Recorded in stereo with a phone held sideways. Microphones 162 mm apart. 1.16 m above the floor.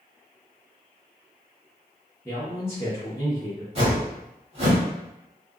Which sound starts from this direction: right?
A whoosh, at 3.8 s.